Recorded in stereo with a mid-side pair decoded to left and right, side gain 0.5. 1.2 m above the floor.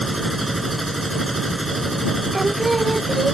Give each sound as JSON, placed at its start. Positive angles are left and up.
{"t": 0.0, "sound": "a machine running", "azimuth_deg": -15}
{"t": 2.3, "sound": "singing", "azimuth_deg": -20}